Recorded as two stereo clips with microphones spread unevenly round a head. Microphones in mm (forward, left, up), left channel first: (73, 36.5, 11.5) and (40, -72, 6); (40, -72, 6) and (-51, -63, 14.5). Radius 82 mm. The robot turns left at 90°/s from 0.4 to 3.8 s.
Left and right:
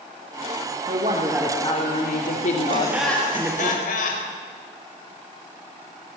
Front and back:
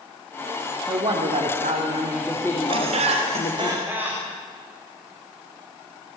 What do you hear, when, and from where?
0.9 s a woman speaking: 145° right, 3 m; by 3.7 s 40° right, 3 m
2.7 s laughter: 165° right, 5 m; by 4.3 s 95° left, 5 m